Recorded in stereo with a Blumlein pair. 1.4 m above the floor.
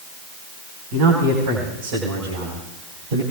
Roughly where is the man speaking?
Ahead right.